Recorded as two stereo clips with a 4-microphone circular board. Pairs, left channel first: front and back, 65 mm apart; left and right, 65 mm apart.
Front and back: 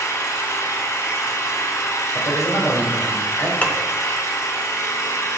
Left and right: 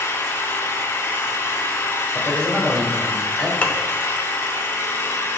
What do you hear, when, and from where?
0.0 s an engine running: 40° left, 1.0 m
2.1 s a man speaking: 5° right, 2 m
3.6 s dishes clattering: 40° left, 0.7 m